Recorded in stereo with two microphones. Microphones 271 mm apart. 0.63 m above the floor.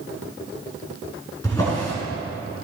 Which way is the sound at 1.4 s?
15° left (ahead or behind).